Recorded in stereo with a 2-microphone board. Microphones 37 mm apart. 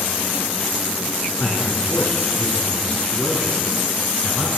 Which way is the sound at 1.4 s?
70° left (ahead or behind).